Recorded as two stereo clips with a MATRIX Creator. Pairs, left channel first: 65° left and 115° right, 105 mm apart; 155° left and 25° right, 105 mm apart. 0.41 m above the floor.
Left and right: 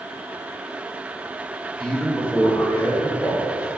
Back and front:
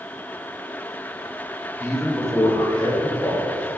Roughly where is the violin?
No violin in this recording.